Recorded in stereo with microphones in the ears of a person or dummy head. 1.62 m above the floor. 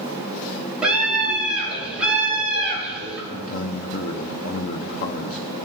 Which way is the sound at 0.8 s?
10° right (ahead or behind).